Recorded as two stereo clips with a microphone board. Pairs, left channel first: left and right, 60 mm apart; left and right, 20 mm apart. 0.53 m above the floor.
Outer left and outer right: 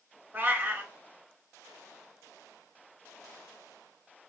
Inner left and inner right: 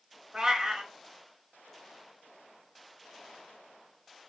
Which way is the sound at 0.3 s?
35° right (ahead or behind).